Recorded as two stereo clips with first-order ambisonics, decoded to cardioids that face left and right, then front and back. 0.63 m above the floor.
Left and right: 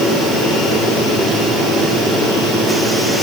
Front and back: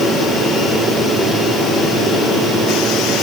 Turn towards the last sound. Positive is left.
No sound to turn to.